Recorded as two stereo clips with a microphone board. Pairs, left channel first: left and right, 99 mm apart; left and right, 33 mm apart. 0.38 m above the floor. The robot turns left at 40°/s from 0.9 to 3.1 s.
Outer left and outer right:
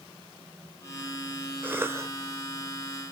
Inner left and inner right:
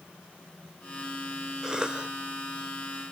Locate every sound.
1.6 s a cough: 20° right (ahead or behind), 1.0 m; by 2.1 s 30° right (ahead or behind), 1.0 m